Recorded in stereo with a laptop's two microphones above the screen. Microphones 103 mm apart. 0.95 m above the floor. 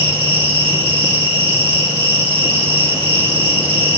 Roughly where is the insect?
Right.